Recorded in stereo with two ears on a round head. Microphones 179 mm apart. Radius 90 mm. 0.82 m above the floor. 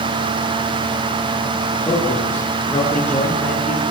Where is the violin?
No violin in this recording.